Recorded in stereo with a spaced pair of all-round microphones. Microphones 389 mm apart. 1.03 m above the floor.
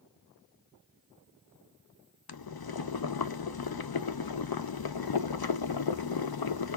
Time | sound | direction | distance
2.3 | boiling | 70° left (ahead or behind) | 0.5 m